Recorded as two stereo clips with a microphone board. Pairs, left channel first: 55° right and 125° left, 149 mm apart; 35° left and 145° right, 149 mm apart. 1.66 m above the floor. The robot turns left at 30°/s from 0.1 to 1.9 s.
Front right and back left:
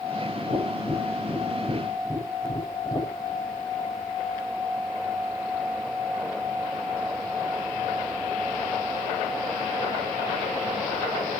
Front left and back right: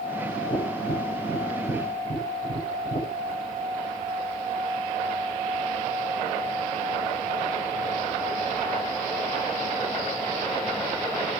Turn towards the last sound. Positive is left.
turn(degrees=25)